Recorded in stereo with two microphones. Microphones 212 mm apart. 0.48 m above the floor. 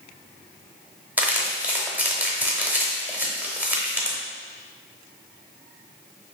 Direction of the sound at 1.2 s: 10° right (ahead or behind).